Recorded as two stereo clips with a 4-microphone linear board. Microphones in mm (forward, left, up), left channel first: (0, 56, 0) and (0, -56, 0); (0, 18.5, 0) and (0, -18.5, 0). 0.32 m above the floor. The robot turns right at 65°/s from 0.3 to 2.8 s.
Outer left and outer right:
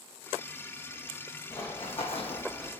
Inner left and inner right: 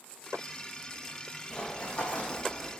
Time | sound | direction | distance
1.5 | running footsteps | 25° left (ahead or behind) | 0.9 m